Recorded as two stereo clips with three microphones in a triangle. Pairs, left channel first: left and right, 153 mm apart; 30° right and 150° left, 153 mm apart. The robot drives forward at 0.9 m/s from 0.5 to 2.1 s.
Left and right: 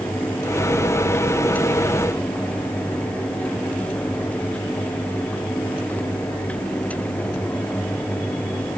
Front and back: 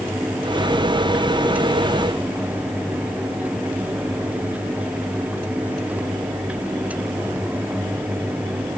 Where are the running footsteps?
I don't hear running footsteps.